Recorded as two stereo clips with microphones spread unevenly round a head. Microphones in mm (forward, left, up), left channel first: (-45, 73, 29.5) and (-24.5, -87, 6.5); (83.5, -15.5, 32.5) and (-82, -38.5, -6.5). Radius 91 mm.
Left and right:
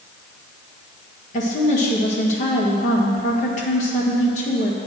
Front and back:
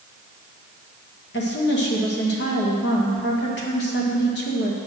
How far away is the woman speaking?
About 1.7 m.